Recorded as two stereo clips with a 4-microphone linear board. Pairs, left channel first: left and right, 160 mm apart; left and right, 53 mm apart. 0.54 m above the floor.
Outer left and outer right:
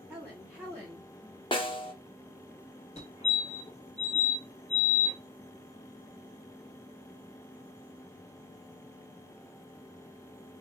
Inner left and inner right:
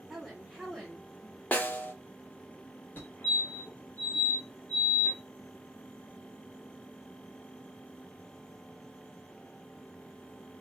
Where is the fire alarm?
35° left (ahead or behind), 2.5 m.